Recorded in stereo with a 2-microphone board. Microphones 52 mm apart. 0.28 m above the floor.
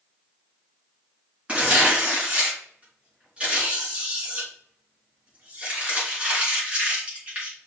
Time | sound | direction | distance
1.5 | tearing paper | 25° right (ahead or behind) | 4 m